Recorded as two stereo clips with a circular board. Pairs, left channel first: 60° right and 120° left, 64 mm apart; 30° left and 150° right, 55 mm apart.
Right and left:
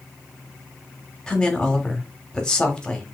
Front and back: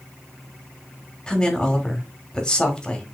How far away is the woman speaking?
About 1.0 m.